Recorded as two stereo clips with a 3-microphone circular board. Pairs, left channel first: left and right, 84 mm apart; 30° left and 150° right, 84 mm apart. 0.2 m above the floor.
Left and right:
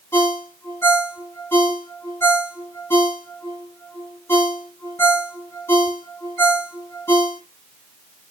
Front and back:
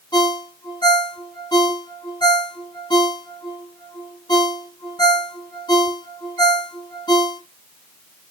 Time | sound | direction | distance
0.1 | a ringtone | 30° left | 1.3 m